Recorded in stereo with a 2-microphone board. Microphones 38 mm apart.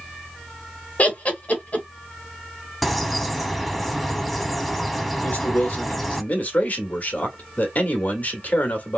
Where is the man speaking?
45° left (ahead or behind), 1.5 m.